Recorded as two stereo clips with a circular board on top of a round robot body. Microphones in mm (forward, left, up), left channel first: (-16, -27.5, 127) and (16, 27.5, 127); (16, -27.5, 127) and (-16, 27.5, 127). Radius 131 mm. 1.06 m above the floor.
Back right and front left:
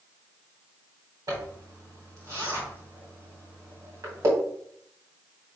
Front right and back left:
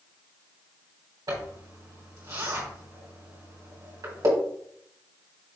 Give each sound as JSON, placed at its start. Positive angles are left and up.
{"t": 1.3, "sound": "a zipper", "azimuth_deg": 95, "distance_m": 2.5}